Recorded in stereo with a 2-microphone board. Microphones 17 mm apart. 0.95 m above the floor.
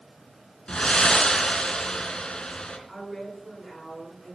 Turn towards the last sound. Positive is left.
turn(degrees=5)  # may be behind; listen again after turning